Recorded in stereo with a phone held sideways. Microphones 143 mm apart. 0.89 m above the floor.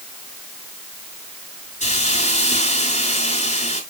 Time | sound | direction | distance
1.8 | a hiss | 50° left (ahead or behind) | 5 m